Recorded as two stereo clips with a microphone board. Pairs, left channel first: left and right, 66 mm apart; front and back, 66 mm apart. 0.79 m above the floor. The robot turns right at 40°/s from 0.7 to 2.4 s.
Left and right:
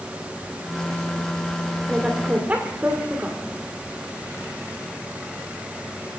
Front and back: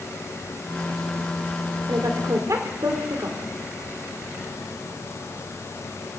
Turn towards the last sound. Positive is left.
turn(degrees=-150)